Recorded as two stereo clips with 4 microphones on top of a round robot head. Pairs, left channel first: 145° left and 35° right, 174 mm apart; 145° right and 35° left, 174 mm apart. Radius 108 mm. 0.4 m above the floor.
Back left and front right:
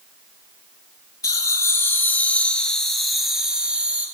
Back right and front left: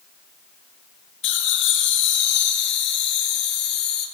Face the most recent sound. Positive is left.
turn(degrees=-115)